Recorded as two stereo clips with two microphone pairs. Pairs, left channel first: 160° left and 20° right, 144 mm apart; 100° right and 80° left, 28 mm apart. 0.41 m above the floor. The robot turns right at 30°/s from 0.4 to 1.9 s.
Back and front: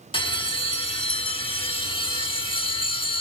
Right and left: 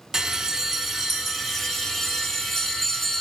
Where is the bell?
135° left, 0.8 m; by 3.2 s straight behind, 0.8 m.